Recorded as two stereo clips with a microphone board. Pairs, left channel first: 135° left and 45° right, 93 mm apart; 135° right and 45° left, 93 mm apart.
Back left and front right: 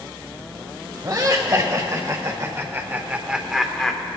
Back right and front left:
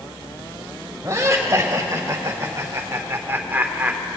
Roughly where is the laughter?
Ahead.